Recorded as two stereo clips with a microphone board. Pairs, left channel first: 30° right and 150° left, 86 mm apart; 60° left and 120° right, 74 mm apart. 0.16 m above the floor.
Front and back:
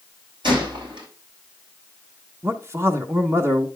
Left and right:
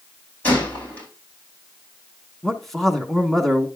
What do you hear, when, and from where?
0.4 s a gunshot: 130° left, 5.5 m
2.4 s a man speaking: 145° left, 1.4 m